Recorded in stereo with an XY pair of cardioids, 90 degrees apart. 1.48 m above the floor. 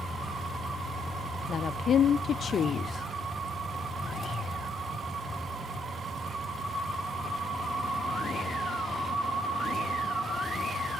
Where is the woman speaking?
55° left, 0.9 m.